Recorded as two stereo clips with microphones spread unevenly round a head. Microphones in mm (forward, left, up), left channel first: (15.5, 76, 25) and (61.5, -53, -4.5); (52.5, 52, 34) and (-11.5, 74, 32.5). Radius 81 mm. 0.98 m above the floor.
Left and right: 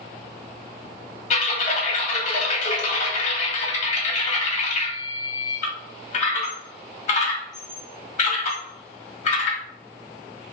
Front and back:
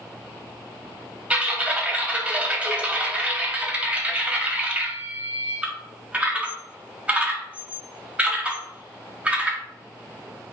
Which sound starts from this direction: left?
Typing on a keyboard, at 1.3 s.